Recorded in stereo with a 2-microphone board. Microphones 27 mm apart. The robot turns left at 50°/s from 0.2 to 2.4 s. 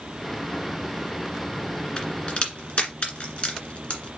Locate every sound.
2.0 s a crack: 30° left (ahead or behind), 1.9 m; by 4.1 s 45° left (ahead or behind), 1.9 m